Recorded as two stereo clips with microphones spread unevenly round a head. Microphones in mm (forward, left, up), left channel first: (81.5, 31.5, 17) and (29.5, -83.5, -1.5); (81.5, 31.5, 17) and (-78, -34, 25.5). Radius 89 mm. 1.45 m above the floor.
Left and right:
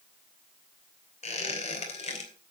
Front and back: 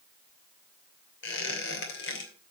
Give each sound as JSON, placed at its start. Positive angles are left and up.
{"t": 1.2, "sound": "a squeak", "azimuth_deg": 45, "distance_m": 2.5}